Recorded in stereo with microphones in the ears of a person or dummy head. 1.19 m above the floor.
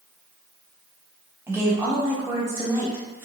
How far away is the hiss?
I don't hear a hiss.